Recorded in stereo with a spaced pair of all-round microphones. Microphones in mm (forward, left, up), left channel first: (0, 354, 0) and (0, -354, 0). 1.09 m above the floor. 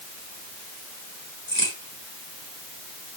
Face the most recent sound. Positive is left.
turn(degrees=55)  # may be behind; listen again after turning